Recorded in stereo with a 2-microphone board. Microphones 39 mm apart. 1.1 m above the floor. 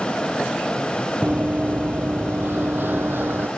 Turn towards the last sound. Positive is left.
turn(degrees=-55)  # may be behind; listen again after turning